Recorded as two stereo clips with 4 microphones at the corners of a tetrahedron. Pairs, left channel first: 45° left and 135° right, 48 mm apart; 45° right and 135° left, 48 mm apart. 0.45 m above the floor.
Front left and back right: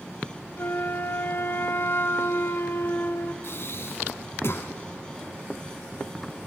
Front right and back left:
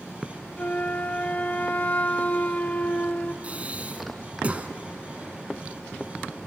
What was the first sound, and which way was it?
A flute, 10° left.